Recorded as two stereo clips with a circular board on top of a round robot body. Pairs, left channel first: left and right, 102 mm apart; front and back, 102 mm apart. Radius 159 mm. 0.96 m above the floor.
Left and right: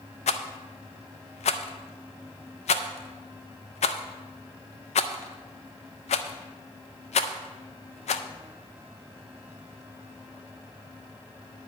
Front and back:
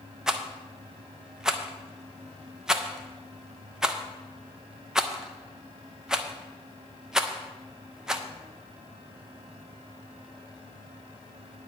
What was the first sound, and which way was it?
A rattle, 95° left.